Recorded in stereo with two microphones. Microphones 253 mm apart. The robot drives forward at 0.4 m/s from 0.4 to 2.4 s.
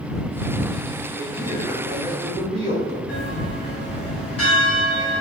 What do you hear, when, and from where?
1.1 s a man speaking: 30° right (ahead or behind), 1.1 m; by 3.0 s 20° right (ahead or behind), 1.4 m
3.1 s a bell: 70° left (ahead or behind), 1.3 m